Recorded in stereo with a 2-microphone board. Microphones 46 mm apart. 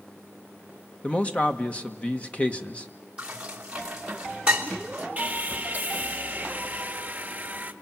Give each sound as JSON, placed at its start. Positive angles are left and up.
{"t": 1.0, "sound": "a man speaking", "side_deg": 25, "distance_m": 1.5}
{"t": 3.2, "sound": "dishes clattering", "side_deg": -20, "distance_m": 3.0}
{"t": 5.2, "sound": "sawing", "side_deg": -30, "distance_m": 1.3}